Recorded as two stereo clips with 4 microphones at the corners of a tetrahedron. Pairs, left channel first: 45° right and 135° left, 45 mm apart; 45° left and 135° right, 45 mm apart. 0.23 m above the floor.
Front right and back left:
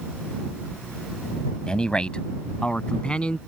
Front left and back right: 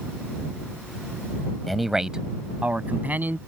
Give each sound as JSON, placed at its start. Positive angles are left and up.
{"t": 1.7, "sound": "a man speaking", "azimuth_deg": -40}